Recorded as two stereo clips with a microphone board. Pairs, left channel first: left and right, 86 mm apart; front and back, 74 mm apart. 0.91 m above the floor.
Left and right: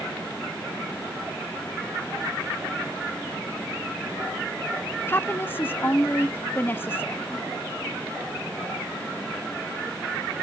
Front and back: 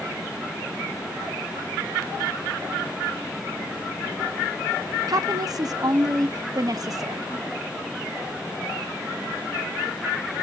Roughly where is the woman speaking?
Behind left.